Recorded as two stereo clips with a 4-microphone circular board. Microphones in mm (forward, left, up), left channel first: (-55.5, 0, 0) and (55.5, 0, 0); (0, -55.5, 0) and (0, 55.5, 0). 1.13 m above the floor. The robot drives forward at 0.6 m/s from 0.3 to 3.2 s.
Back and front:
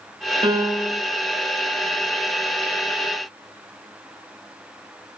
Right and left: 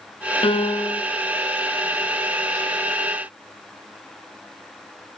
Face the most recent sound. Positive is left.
turn(degrees=-135)